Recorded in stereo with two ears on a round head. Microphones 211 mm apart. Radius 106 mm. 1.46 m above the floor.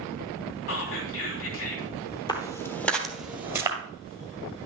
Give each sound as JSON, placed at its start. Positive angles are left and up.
{"t": 0.7, "sound": "whispering", "side_deg": 60, "distance_m": 3.0}
{"t": 2.3, "sound": "footsteps", "side_deg": 20, "distance_m": 1.5}